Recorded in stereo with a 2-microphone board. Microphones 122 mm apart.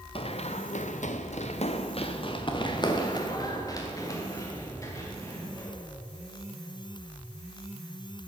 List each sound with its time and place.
0.1 s running footsteps: 50° left (ahead or behind), 1.0 m; by 5.7 s 25° left (ahead or behind), 4 m